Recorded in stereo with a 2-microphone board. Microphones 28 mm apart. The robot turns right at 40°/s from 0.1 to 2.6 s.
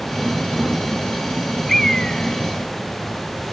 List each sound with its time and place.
1.7 s a bird: 10° left (ahead or behind); by 3.5 s 40° left (ahead or behind)